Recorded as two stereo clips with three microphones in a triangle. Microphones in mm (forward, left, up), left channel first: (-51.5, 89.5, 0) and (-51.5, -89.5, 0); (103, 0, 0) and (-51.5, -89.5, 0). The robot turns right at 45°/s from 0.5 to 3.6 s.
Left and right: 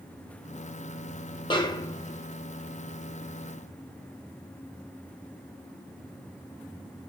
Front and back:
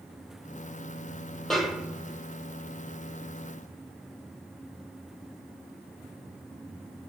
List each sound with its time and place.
1.5 s a snare drum: 115° left, 0.7 m; by 2.3 s 150° left, 0.7 m